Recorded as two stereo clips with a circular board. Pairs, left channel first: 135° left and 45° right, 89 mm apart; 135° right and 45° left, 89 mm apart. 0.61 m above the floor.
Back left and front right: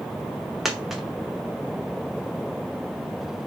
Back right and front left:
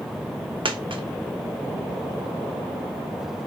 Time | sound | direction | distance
0.7 | a dropped coin | 40° left | 0.6 m